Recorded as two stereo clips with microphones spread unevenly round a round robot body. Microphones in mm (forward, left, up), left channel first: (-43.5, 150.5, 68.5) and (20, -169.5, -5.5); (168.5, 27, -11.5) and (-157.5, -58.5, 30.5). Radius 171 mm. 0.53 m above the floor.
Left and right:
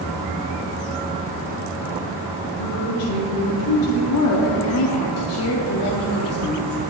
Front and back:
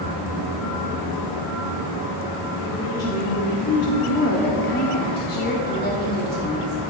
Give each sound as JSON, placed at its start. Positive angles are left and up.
{"t": 2.6, "sound": "a woman speaking", "azimuth_deg": 80, "distance_m": 3.0}
{"t": 4.1, "sound": "a woman speaking", "azimuth_deg": 55, "distance_m": 0.9}